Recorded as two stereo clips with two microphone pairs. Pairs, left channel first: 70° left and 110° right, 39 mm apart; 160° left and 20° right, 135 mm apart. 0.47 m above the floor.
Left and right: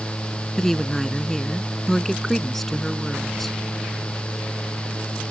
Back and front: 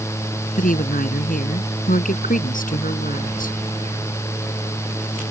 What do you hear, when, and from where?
0.6 s a woman speaking: 155° left